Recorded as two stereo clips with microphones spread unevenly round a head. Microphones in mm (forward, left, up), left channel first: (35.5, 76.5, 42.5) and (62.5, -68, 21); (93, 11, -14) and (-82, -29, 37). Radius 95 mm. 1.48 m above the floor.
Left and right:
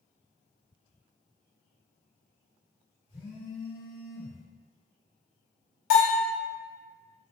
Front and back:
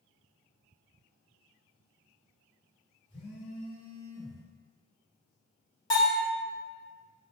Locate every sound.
3.1 s a phone buzzing: 70° left, 1.5 m
5.9 s a bell: 80° left, 1.3 m